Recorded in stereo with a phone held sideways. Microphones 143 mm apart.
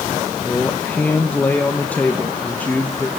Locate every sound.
0.4 s a man speaking: 10° left (ahead or behind), 1.3 m